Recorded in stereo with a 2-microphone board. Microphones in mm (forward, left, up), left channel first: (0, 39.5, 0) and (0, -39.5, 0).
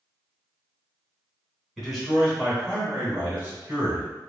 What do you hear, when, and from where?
1.8 s a man speaking: centre (ahead or behind), 1.2 m; by 4.1 s 30° right (ahead or behind), 1.8 m